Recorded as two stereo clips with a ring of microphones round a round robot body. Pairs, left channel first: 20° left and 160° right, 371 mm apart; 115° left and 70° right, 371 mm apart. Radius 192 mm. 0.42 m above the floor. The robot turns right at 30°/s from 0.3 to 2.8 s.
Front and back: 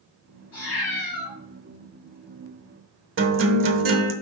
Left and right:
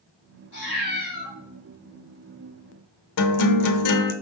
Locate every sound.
0.5 s a cat meowing: 75° left, 3.5 m; by 1.3 s 95° left, 3.5 m
3.2 s a guitar: 145° left, 0.8 m